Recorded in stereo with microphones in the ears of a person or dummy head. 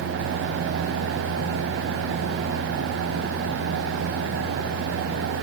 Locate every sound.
Only background noise.